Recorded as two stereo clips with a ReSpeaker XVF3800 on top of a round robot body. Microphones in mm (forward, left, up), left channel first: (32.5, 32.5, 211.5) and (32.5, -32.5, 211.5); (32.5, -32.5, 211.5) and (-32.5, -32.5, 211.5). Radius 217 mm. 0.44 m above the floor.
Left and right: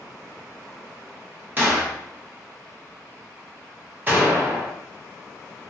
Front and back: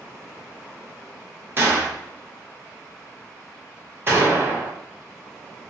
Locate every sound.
1.6 s a gunshot: 140° right, 1.6 m